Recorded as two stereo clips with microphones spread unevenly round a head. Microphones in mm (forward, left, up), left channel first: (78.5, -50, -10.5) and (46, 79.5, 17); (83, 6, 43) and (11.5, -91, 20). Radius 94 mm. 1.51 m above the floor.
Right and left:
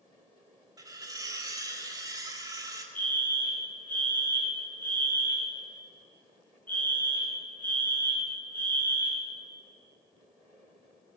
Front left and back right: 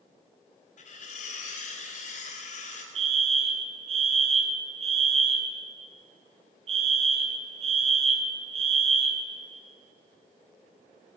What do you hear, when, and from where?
0.8 s cutlery clinking: 45° left, 4 m
3.0 s a fire alarm: 155° right, 2.5 m